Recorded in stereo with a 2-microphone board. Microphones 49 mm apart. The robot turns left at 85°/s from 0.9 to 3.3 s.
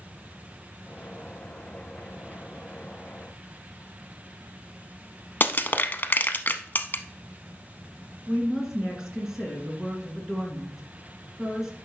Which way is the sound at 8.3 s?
10° right (ahead or behind).